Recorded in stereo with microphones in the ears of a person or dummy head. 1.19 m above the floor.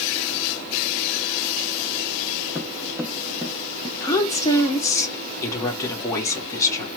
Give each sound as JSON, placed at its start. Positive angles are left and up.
{"t": 2.5, "sound": "footsteps", "side_deg": -10, "distance_m": 1.6}
{"t": 4.0, "sound": "a woman speaking", "side_deg": 20, "distance_m": 1.9}